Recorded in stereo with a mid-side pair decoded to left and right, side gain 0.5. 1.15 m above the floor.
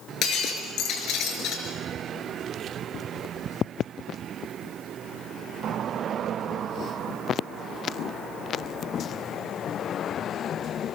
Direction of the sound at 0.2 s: 65° left.